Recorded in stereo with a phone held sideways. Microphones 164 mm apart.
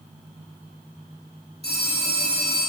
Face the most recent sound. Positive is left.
turn(degrees=70)  # may be behind; listen again after turning